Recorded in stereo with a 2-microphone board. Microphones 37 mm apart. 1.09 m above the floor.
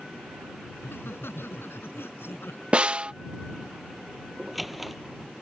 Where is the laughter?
85° left; by 2.6 s 90° left.